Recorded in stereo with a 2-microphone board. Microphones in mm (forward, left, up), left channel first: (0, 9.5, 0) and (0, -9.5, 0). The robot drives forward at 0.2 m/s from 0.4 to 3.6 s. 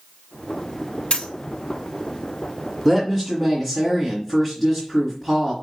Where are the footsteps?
No footsteps in this recording.